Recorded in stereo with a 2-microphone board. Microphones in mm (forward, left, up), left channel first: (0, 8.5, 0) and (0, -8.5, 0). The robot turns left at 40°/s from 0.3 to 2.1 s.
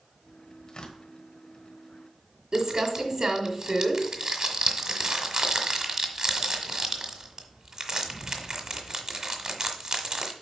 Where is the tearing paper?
45° left (ahead or behind), 1.2 m; by 1.0 s 60° left (ahead or behind), 1.2 m.